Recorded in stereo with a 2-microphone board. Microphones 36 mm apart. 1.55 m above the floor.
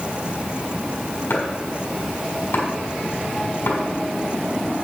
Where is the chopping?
65° left (ahead or behind), 4 m.